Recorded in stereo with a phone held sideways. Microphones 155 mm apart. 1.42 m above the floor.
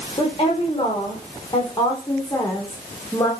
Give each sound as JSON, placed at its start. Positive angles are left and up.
{"t": 0.2, "sound": "a woman speaking", "side_deg": 35, "distance_m": 4.0}